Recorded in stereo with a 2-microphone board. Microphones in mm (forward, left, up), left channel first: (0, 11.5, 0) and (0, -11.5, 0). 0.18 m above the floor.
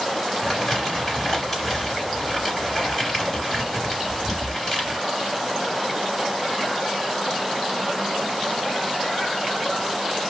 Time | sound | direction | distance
0.4 | crumpling | 15° left (ahead or behind) | 2.5 m